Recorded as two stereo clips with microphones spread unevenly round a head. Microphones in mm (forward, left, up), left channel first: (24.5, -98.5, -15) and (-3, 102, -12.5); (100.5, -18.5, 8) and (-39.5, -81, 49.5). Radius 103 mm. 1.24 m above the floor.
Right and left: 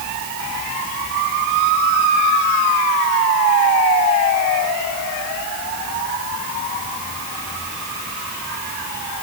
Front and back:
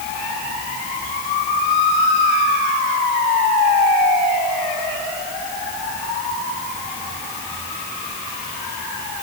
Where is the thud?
No thud in this recording.